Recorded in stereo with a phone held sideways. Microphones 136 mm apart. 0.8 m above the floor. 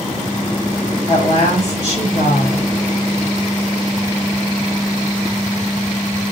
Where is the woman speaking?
70° right (ahead or behind), 3 m.